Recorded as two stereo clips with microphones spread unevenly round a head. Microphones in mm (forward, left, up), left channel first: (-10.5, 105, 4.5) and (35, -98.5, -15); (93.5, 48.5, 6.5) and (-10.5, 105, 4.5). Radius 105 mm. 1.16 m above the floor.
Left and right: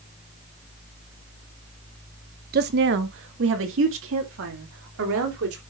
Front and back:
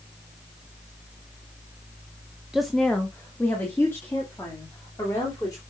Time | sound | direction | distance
2.5 | a woman speaking | 120° right | 0.8 m